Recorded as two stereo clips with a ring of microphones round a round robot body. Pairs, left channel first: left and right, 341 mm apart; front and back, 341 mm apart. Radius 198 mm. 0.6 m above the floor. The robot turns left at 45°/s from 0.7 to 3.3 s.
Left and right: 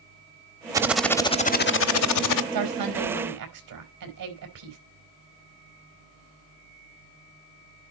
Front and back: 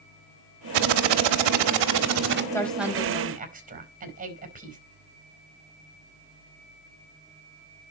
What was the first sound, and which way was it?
Typing on a keyboard, 170° right.